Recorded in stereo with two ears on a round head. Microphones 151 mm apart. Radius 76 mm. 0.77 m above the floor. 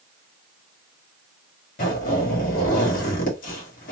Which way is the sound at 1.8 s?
50° left (ahead or behind).